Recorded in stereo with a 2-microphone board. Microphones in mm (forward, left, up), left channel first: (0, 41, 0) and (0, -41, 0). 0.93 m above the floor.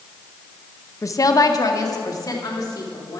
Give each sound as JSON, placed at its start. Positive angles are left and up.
{"t": 1.0, "sound": "a woman speaking", "side_deg": 35, "distance_m": 0.6}